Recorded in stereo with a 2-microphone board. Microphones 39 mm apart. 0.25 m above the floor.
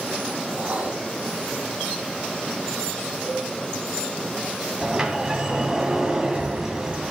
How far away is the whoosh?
About 3.5 m.